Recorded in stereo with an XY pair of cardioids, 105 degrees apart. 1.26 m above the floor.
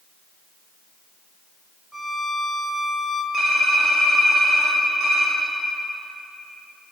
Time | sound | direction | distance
1.9 | a violin | straight ahead | 0.6 m
3.3 | typing on a keyboard | 40° right | 1.5 m